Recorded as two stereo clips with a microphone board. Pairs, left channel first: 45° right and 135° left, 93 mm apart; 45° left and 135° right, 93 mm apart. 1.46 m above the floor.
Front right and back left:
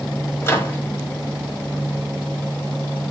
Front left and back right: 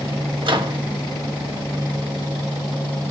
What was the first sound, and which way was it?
A microwave, 105° right.